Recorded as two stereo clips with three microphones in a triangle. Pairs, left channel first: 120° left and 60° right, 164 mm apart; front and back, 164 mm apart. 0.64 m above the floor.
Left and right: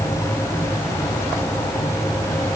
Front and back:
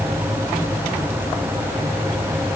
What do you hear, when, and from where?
Only background noise.